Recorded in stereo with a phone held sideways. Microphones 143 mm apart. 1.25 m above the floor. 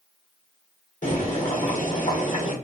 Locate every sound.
1.0 s boiling: 55° left (ahead or behind), 1.3 m